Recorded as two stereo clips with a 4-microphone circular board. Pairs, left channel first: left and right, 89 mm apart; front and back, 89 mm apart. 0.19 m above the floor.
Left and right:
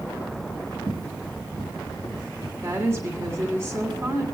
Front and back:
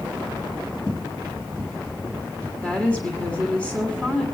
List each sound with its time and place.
0.9 s footsteps: 45° right, 5.5 m; by 2.5 s 35° right, 6.5 m
2.6 s a woman speaking: 65° right, 1.5 m